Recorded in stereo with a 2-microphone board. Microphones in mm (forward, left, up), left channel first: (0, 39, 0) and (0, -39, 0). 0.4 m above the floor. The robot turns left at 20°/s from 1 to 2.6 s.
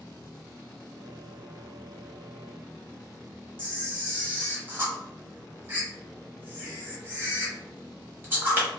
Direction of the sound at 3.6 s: 30° right (ahead or behind).